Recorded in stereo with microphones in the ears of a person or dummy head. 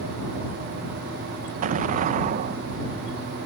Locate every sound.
1.6 s an explosion: 40° right (ahead or behind)